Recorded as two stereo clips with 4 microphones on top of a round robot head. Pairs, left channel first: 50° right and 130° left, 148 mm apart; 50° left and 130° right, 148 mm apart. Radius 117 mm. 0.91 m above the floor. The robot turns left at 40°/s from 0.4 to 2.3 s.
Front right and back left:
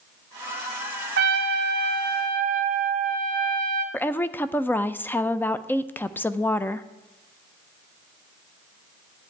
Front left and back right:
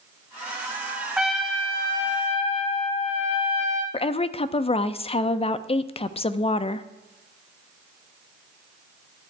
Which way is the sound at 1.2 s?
140° left.